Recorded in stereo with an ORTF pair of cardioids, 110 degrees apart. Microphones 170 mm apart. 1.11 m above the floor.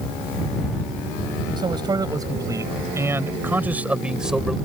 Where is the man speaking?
25° right; by 4.6 s straight ahead.